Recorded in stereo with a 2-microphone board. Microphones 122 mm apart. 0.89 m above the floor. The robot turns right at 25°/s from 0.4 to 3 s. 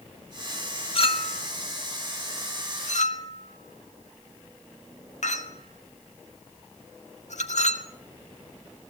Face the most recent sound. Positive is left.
turn(degrees=75)  # may be behind; listen again after turning